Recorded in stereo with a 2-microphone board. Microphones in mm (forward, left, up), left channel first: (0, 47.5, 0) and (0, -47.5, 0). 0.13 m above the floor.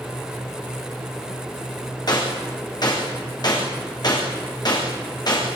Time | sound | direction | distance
2.1 | a gunshot | 45° left (ahead or behind) | 7.5 m